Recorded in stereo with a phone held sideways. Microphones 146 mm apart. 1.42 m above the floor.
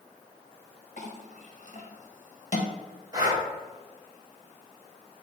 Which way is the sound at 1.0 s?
55° left (ahead or behind).